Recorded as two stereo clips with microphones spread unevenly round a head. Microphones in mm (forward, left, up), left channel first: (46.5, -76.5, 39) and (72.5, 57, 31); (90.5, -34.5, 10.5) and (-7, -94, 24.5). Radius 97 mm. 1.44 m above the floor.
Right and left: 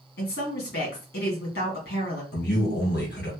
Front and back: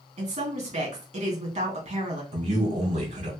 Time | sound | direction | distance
0.2 | a woman speaking | 130° right | 2 m
2.3 | a man speaking | 130° right | 2 m